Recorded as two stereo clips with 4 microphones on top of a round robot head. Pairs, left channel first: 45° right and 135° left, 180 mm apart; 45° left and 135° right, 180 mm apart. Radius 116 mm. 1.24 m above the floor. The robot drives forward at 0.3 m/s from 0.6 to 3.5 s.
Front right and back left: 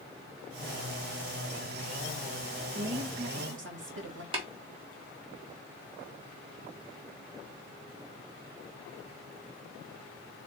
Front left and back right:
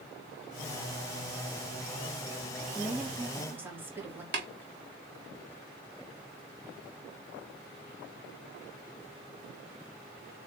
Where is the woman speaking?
140° left, 1.8 m; by 4.2 s 145° left, 2.0 m.